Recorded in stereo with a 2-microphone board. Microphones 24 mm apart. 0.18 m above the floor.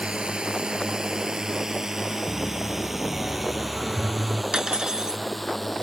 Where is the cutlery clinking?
30° right (ahead or behind).